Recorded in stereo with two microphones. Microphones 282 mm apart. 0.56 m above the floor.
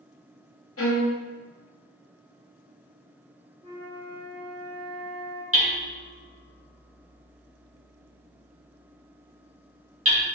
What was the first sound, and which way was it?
A violin, 50° left (ahead or behind).